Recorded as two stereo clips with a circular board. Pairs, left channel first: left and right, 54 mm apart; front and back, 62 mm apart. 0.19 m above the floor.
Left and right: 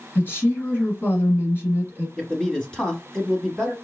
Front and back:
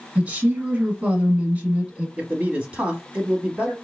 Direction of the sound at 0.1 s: 115° left.